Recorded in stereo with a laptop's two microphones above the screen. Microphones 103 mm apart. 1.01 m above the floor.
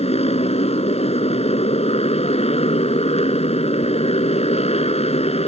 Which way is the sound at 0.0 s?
80° left.